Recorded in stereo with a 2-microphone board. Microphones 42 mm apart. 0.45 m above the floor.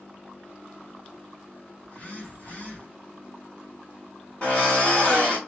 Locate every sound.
1.8 s a phone buzzing: 35° left (ahead or behind), 1.7 m
4.4 s a drill: 30° left (ahead or behind), 1.8 m